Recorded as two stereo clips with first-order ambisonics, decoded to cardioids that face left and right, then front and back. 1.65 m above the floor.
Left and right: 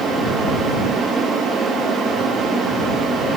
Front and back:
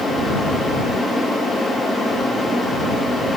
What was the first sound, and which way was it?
Only background noise.